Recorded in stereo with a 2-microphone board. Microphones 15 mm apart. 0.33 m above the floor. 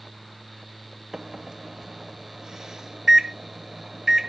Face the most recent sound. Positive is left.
turn(degrees=-35)  # may be behind; listen again after turning